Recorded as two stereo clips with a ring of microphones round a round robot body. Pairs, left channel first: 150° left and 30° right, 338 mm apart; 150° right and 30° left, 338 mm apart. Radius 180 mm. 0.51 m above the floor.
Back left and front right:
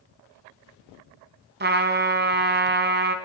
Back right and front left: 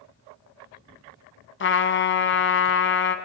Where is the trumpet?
90° right, 1.4 m.